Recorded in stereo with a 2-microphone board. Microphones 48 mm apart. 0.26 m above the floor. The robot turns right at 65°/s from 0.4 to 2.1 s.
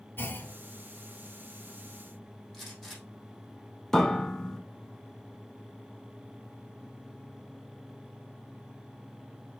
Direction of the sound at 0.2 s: 55° left (ahead or behind).